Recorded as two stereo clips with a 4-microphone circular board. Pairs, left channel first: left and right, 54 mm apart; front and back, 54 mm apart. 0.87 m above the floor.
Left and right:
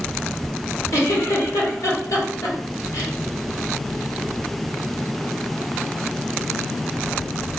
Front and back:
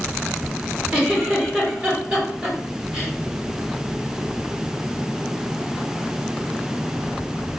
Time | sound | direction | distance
0.9 | a giggle | 105° left | 1.5 m